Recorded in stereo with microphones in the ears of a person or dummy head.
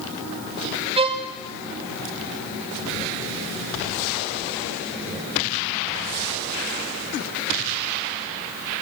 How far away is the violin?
About 0.9 m.